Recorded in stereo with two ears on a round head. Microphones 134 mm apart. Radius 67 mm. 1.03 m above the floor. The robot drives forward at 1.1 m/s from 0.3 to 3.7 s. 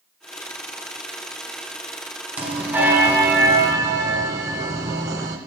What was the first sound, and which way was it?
A bell, 15° right (ahead or behind).